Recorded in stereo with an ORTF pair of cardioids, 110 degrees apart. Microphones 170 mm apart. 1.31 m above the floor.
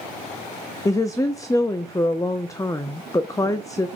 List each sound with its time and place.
0.8 s a woman speaking: 20° left, 0.5 m